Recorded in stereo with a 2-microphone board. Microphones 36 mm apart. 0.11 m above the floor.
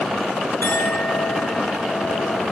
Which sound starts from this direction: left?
A clink, at 0.6 s.